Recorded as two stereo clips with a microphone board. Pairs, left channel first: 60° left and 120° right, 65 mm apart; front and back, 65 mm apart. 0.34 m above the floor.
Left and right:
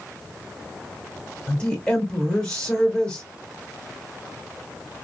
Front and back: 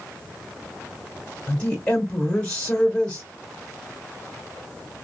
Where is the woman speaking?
30° left, 1.0 m.